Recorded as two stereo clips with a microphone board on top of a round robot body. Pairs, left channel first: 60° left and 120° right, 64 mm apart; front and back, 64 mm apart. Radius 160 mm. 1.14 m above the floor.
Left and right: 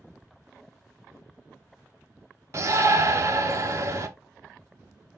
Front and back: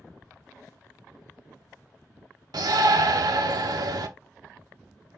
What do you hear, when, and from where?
2.5 s a shout: 165° right, 0.6 m